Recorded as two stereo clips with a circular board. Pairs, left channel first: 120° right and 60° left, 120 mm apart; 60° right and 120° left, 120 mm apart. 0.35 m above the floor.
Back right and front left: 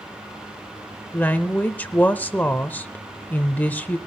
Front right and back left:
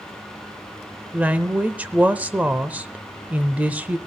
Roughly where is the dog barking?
No dog barking in this recording.